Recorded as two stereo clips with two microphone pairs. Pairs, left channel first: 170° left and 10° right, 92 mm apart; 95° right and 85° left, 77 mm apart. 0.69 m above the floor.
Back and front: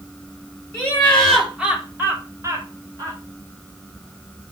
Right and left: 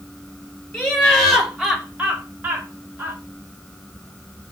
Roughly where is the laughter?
Behind right.